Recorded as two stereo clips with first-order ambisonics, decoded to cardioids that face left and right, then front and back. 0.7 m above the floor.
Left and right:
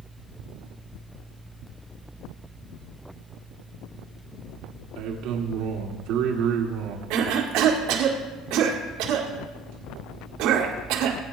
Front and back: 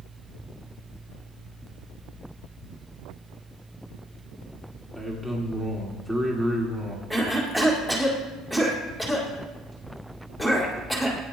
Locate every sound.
5.0 s a man speaking: 95° right, 1.7 m
7.1 s a cough: 95° right, 2.0 m